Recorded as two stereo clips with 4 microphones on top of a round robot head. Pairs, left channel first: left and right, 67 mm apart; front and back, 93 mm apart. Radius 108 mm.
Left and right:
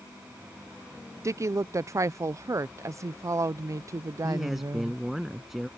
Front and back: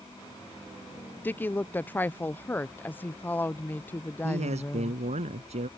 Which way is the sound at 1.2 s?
60° right.